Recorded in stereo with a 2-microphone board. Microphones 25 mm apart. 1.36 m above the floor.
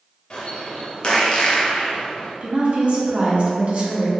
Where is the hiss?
No hiss in this recording.